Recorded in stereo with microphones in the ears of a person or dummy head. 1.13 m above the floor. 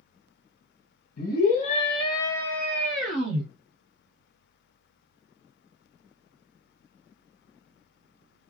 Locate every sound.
1.2 s a scream: 60° left (ahead or behind), 1.3 m; by 3.5 s 5° right (ahead or behind), 2 m